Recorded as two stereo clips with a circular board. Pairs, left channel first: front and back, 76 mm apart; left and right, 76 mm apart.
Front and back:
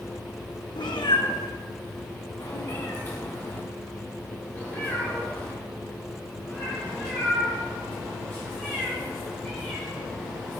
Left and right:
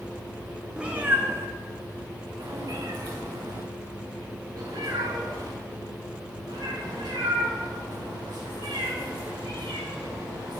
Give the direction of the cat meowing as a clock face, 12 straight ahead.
12 o'clock.